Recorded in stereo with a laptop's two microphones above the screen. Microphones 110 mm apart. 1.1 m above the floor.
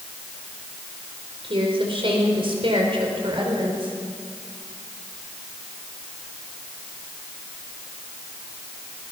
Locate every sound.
1.4 s a woman speaking: 55° right (ahead or behind), 4.5 m